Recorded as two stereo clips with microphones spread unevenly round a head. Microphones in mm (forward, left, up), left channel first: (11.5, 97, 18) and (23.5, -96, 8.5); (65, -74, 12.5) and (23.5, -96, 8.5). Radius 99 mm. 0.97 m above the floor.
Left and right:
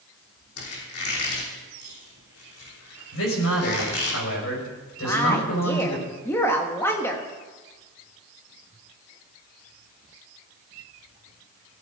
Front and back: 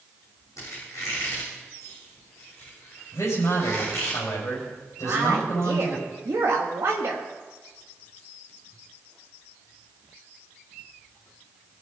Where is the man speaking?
80° left, 5.5 m.